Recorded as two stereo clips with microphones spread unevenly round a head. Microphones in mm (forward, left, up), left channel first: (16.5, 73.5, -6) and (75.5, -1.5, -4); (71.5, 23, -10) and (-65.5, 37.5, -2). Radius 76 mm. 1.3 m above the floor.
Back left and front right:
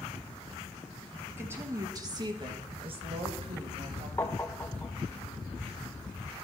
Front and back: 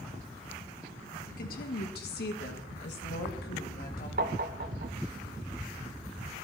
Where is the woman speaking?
20° left, 1.8 m; by 4.1 s 45° right, 2.5 m.